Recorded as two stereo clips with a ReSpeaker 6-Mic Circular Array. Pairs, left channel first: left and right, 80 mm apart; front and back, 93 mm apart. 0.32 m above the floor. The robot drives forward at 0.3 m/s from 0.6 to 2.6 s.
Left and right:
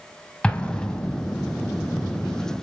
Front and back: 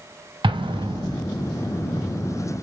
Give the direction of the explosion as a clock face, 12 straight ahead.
6 o'clock.